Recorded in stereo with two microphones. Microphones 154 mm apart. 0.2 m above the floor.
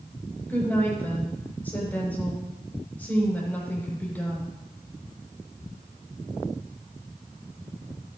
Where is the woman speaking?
10° left (ahead or behind), 7 m.